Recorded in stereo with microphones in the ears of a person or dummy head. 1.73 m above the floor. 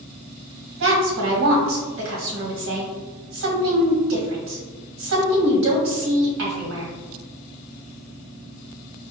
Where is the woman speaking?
65° right (ahead or behind), 1.2 m.